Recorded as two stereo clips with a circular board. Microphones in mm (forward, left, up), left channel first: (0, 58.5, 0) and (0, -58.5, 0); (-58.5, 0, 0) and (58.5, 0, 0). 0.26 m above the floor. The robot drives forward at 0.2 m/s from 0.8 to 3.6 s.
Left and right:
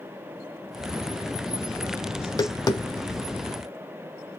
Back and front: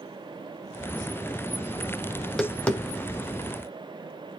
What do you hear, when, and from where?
2.2 s tapping: 90° left, 0.6 m; by 3.4 s 125° left, 0.6 m